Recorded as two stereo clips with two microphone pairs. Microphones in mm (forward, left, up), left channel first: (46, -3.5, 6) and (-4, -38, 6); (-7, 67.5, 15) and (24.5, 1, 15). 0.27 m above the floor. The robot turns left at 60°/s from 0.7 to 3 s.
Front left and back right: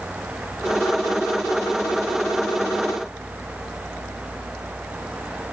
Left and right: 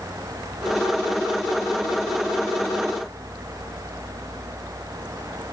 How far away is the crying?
I don't hear crying.